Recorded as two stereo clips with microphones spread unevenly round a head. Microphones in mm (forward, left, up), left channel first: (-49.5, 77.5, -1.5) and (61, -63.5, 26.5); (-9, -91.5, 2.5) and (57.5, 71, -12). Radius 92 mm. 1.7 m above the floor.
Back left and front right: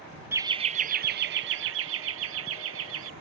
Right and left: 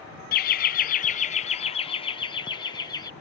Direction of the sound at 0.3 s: 120° right.